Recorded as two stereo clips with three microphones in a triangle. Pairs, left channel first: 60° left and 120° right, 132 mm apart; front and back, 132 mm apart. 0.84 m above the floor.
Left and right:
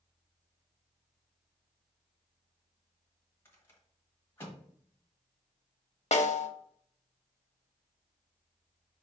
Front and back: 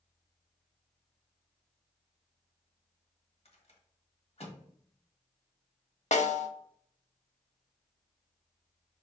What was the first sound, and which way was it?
A rattle, 10° right.